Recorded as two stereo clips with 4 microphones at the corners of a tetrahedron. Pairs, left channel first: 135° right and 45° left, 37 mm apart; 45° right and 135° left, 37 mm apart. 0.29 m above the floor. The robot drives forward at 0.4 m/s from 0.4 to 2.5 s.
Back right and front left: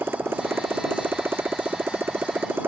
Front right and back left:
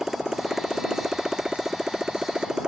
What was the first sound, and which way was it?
A motorcycle, 55° left.